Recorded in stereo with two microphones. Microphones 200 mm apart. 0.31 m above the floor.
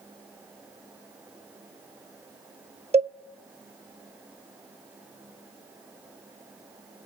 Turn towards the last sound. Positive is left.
turn(degrees=-30)  # may be behind; listen again after turning